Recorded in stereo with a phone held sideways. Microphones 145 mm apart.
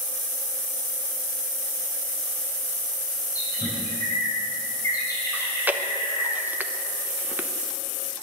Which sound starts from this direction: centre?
Chewing, at 5.3 s.